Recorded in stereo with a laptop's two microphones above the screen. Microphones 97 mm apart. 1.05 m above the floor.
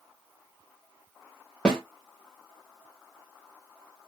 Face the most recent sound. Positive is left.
turn(degrees=5)  # may be behind; listen again after turning